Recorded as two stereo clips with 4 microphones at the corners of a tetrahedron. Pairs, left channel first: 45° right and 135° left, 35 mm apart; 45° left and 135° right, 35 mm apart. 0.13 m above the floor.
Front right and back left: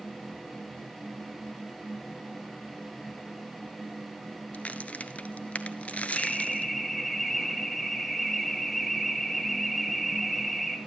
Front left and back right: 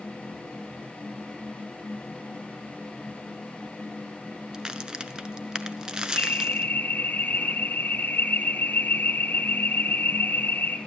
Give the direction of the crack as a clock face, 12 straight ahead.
2 o'clock.